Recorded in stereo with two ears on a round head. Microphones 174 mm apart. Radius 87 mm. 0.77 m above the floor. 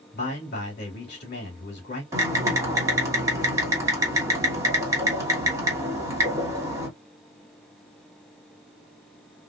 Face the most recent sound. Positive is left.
turn(degrees=-15)  # may be behind; listen again after turning